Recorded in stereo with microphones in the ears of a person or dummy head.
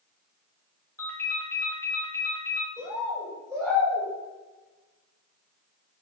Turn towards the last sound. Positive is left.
turn(degrees=-20)  # may be behind; listen again after turning